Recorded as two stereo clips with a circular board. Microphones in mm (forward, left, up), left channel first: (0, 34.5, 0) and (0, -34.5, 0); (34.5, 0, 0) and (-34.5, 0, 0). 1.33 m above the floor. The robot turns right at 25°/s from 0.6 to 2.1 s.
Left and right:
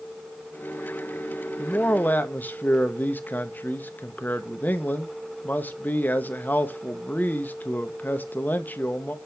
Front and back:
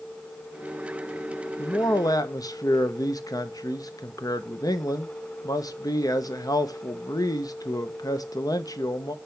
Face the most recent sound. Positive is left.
turn(degrees=25)